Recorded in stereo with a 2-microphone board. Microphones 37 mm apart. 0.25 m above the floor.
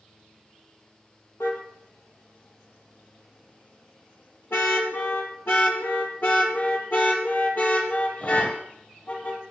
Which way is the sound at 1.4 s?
75° left (ahead or behind).